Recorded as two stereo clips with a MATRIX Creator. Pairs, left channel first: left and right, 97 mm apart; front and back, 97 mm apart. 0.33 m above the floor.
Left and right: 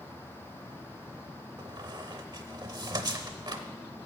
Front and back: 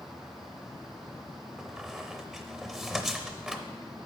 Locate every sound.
1.6 s a squeak: 95° right, 0.6 m